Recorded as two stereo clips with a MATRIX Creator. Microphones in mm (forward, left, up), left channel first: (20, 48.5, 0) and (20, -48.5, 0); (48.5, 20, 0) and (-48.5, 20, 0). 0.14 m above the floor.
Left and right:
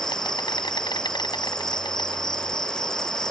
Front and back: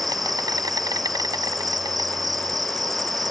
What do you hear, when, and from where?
0.0 s an insect: 130° left